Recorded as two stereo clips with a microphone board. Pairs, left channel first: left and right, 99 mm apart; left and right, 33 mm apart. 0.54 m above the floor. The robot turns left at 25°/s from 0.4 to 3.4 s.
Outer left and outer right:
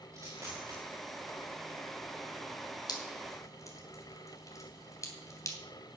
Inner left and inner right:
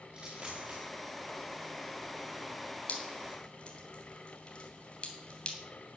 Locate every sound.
0.1 s a dropped coin: 35° right (ahead or behind), 5 m; by 0.8 s 45° right (ahead or behind), 5 m
2.9 s dripping: 45° left (ahead or behind), 3 m; by 5.6 s 35° left (ahead or behind), 3 m